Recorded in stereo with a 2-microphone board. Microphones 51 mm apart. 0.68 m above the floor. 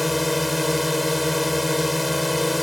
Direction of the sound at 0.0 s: Centre (ahead or behind).